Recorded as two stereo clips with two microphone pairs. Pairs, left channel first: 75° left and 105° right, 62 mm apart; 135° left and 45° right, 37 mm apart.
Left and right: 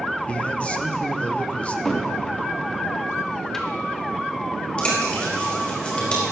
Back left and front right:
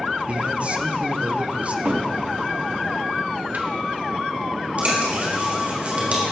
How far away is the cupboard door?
About 1.4 m.